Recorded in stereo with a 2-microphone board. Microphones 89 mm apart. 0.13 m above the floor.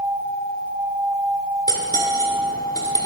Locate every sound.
1.7 s cutlery clinking: 40° left (ahead or behind), 1.2 m